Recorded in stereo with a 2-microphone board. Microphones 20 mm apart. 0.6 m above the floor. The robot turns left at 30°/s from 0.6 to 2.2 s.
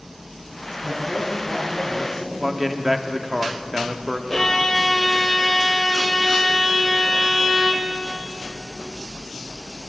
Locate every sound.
0.8 s a man speaking: 115° right, 4.5 m; by 2.3 s 160° right, 4.5 m
2.4 s a man speaking: 10° right (ahead or behind), 1.0 m
4.3 s a violin: 20° left (ahead or behind), 1.4 m